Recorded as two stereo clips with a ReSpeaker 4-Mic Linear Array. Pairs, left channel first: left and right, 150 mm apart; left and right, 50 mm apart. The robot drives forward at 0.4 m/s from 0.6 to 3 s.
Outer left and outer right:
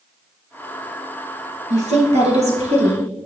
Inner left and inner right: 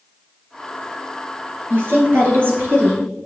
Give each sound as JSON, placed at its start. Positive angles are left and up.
{"t": 1.7, "sound": "a woman speaking", "side_deg": -55, "distance_m": 2.5}